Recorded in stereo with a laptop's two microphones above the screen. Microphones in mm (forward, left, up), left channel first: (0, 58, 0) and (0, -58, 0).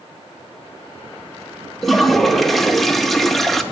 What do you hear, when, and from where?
1.8 s a toilet flushing: centre (ahead or behind), 0.6 m